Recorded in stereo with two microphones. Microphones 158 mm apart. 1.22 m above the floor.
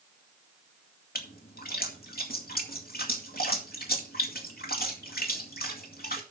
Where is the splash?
75° left (ahead or behind), 2 m.